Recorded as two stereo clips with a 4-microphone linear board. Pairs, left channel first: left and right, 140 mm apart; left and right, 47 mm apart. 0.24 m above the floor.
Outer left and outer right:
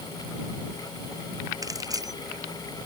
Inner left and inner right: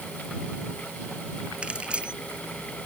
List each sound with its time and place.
1.6 s keys jangling: 25° right (ahead or behind)